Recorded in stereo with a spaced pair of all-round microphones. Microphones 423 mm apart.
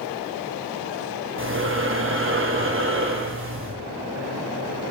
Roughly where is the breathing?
Right.